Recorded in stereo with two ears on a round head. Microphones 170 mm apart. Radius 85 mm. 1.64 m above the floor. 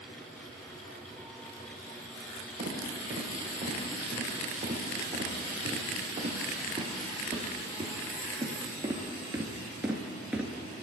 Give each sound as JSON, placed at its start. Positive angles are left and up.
{"t": 2.6, "sound": "footsteps", "side_deg": -35, "distance_m": 5.0}